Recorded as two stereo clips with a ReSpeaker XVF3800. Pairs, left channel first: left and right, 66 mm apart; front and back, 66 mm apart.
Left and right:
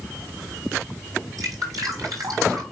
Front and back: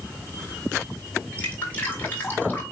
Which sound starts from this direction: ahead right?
Dripping, at 1.4 s.